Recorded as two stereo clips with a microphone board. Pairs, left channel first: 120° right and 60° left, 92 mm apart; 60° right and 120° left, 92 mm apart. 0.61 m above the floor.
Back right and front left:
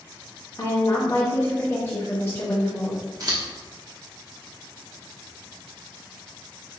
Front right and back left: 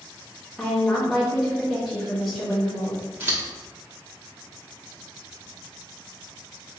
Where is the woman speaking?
150° right, 1.1 m.